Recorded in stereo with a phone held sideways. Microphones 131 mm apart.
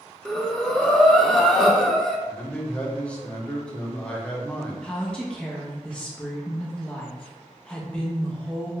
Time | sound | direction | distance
0.2 | breathing | 5° left (ahead or behind) | 0.5 m
2.3 | a man speaking | 10° left (ahead or behind) | 0.8 m
4.8 | a woman speaking | 5° left (ahead or behind) | 0.6 m